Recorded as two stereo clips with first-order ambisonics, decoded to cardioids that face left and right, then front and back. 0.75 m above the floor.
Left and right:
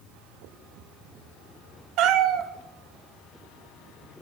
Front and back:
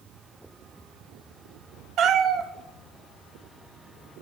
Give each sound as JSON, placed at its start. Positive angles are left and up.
{"t": 2.0, "sound": "a cat meowing", "azimuth_deg": -130, "distance_m": 0.7}